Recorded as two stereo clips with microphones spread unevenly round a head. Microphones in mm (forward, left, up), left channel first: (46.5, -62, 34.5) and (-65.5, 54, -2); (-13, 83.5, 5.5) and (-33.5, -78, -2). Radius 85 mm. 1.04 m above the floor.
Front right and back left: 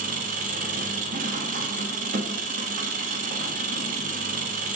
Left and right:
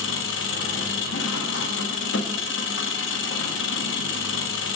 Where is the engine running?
85° left, 0.9 m.